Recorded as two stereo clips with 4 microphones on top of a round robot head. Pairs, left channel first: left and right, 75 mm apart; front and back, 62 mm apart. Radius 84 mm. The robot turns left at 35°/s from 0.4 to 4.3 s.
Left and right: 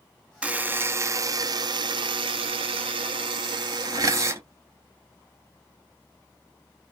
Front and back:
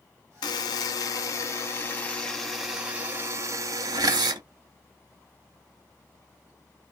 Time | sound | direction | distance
0.4 | a buzzer | 15° right | 0.6 m